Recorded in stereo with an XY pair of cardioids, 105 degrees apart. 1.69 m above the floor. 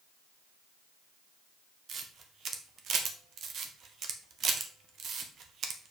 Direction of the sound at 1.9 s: 60° right.